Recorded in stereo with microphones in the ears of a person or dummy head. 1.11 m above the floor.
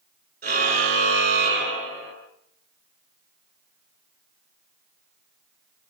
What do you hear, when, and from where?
0.4 s a car horn: 45° right (ahead or behind), 9 m; by 2.1 s 40° right (ahead or behind), 10 m